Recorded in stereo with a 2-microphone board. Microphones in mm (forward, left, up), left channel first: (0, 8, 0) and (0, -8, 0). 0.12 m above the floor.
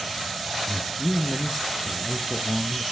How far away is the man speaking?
About 1.3 m.